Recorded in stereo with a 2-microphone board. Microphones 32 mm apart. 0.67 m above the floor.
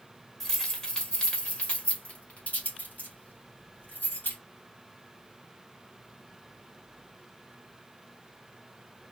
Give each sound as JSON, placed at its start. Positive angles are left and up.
{"t": 0.4, "sound": "keys jangling", "side_deg": 15, "distance_m": 1.7}